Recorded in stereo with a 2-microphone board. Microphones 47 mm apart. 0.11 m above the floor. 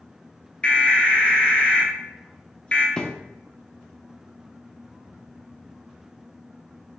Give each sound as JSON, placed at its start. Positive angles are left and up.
{"t": 0.6, "sound": "an alarm", "side_deg": 20, "distance_m": 1.6}
{"t": 3.0, "sound": "a thud", "side_deg": 15, "distance_m": 0.8}